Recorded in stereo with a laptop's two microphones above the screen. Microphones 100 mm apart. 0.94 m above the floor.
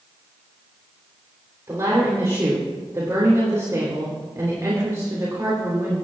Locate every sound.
1.7 s a woman speaking: 30° right (ahead or behind), 3.5 m